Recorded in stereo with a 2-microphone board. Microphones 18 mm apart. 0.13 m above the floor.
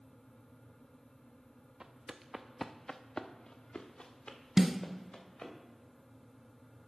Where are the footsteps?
45° right (ahead or behind), 0.9 m; by 5.5 s 70° left (ahead or behind), 3 m.